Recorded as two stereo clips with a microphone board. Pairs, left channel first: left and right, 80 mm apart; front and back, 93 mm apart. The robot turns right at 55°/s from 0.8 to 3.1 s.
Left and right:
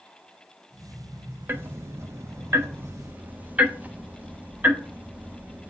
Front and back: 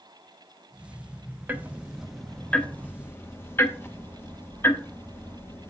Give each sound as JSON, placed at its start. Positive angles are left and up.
{"t": 1.5, "sound": "ticking", "azimuth_deg": -125, "distance_m": 0.7}